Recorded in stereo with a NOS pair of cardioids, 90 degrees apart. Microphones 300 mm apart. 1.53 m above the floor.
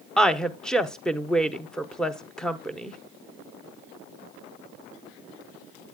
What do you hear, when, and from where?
0.2 s a woman speaking: 5° left, 0.8 m